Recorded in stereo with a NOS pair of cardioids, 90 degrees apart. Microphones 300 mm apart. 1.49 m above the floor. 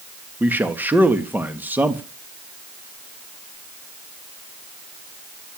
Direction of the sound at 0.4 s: 5° right.